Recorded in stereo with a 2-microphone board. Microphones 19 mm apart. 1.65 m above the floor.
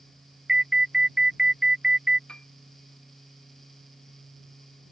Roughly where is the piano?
Left.